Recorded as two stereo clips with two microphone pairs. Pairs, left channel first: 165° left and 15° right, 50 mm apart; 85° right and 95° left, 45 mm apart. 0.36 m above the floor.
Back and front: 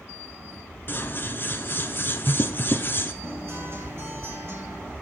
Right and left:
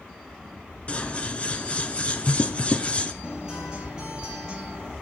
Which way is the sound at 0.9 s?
145° right.